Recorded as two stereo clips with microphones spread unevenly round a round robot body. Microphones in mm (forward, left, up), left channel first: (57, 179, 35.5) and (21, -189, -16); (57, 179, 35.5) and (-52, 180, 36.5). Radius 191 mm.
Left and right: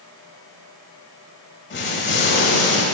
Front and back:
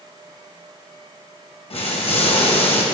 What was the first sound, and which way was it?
An explosion, 20° left.